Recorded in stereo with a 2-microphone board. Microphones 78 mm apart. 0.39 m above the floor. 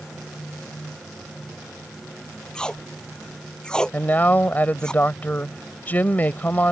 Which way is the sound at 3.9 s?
25° left (ahead or behind).